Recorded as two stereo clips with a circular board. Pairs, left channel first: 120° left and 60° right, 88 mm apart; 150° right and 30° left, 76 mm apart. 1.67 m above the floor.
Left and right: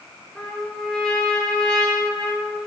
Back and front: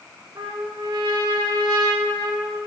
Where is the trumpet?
40° left, 2.5 m.